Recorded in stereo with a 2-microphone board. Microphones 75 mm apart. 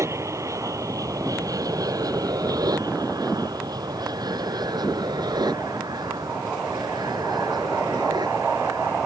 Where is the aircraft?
45° right (ahead or behind); by 9.1 s 80° right.